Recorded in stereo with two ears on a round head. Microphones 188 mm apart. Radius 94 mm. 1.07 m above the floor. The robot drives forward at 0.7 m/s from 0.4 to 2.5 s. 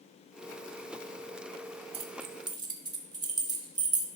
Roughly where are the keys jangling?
Right.